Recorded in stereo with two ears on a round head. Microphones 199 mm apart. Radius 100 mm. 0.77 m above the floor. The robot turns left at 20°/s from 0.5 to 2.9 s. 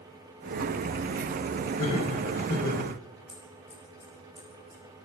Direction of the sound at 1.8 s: 70° left (ahead or behind).